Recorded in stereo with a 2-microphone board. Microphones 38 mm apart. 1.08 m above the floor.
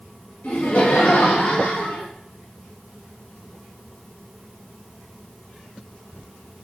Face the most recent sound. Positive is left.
turn(degrees=65)  # may be behind; listen again after turning